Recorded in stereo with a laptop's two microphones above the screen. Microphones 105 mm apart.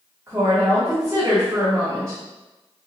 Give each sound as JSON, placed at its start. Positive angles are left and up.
{"t": 0.3, "sound": "a woman speaking", "side_deg": -30, "distance_m": 1.4}